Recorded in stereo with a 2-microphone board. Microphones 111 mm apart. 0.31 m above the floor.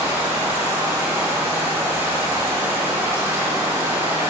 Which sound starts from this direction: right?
Running water, at 0.0 s.